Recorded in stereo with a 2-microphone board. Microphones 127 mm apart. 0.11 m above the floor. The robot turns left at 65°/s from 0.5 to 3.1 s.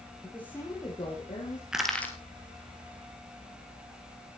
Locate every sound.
0.2 s a woman speaking: 165° left, 4 m; by 1.6 s 95° left, 4 m
1.7 s crushing: 5° right (ahead or behind), 2 m; by 2.1 s 15° left (ahead or behind), 2 m